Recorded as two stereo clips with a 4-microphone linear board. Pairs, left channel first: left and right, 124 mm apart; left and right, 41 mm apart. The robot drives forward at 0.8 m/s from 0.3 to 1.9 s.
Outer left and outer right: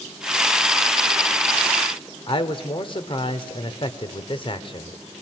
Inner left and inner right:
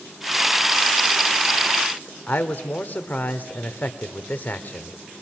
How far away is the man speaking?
About 1.5 m.